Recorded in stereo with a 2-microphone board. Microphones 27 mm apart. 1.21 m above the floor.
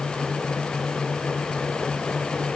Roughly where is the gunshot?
I don't hear a gunshot.